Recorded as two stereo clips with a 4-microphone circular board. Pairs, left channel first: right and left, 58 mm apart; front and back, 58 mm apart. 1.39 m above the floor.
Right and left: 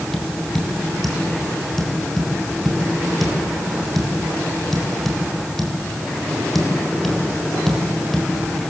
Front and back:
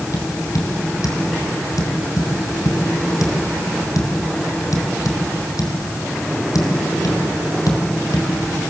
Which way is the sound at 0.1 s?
5° right.